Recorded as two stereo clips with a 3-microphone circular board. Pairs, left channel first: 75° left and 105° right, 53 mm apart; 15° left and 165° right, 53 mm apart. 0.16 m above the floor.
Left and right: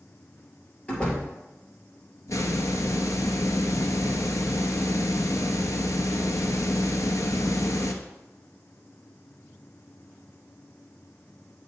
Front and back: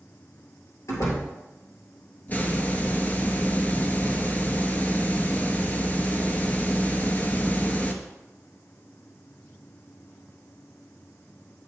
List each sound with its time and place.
0.9 s a door slam: 5° left, 2.5 m
2.3 s a hiss: 70° left, 0.9 m